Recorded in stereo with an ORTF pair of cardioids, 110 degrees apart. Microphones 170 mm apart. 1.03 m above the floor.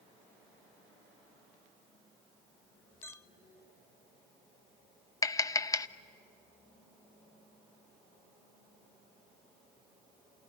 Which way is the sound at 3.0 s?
15° left.